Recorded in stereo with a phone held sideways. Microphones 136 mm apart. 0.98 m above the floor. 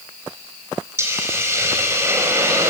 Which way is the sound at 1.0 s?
20° right (ahead or behind).